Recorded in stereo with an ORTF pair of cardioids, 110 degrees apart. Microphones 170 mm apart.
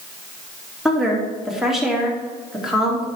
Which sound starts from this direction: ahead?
A woman speaking, at 0.8 s.